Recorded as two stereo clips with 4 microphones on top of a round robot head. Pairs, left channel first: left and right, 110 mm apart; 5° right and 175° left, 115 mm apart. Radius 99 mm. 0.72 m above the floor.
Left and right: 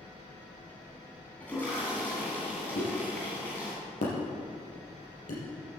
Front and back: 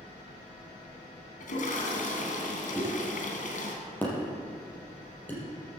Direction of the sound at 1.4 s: 10° left.